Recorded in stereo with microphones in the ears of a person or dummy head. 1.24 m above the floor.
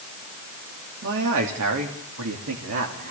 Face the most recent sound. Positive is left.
turn(degrees=-55)  # may be behind; listen again after turning